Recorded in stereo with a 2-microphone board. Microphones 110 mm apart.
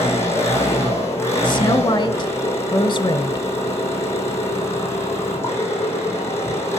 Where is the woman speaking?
45° left (ahead or behind), 1.3 m.